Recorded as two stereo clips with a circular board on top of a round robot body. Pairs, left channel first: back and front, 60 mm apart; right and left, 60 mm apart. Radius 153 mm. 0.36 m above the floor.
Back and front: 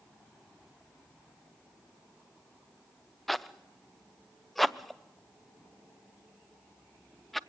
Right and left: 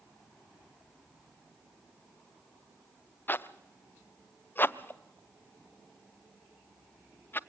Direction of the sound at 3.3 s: 95° right.